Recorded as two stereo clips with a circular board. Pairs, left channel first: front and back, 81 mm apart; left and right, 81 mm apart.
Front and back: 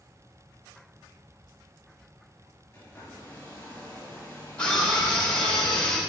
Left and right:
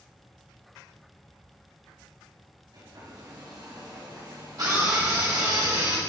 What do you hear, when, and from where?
2.7 s a hair dryer: 65° right, 3 m
4.6 s a scream: 75° right, 2 m